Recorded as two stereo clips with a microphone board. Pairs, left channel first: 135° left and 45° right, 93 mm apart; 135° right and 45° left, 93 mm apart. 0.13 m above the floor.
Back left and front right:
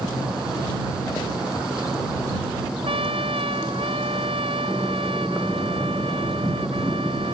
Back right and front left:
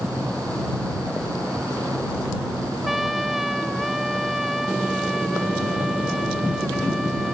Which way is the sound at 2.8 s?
45° right.